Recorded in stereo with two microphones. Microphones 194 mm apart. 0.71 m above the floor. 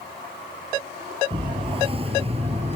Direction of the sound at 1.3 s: 30° right (ahead or behind).